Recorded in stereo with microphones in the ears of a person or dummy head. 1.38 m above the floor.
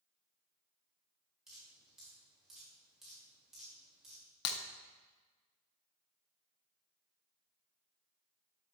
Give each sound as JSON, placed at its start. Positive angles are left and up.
{"t": 1.5, "sound": "dripping", "side_deg": -5, "distance_m": 5.5}
{"t": 4.5, "sound": "breaking glass", "side_deg": 65, "distance_m": 1.1}